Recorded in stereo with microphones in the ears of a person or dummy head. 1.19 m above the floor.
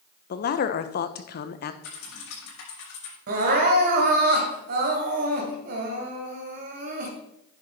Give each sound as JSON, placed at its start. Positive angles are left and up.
{"t": 0.3, "sound": "a man speaking", "side_deg": 45, "distance_m": 0.9}
{"t": 1.8, "sound": "typing on a keyboard", "side_deg": 85, "distance_m": 6.0}
{"t": 3.3, "sound": "crying", "side_deg": -55, "distance_m": 2.0}